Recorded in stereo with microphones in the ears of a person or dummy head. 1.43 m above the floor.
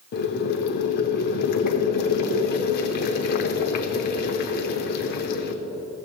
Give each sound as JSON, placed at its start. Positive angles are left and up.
{"t": 0.1, "sound": "boiling", "side_deg": 50, "distance_m": 0.7}